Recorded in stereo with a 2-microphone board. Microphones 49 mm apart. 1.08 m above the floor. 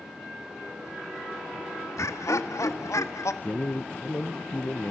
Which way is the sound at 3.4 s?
40° left (ahead or behind).